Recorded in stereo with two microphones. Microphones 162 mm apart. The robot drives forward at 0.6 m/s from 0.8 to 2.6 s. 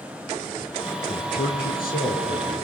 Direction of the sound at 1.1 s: 70° left (ahead or behind).